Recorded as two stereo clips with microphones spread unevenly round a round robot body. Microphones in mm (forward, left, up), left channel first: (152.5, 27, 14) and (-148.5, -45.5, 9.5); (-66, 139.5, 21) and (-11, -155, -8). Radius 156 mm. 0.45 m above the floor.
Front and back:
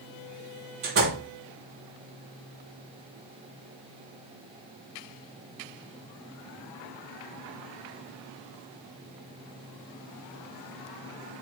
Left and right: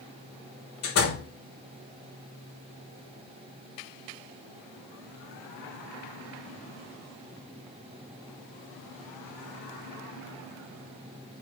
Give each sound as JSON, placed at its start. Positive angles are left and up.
{"t": 0.8, "sound": "a door slam", "azimuth_deg": 140, "distance_m": 8.5}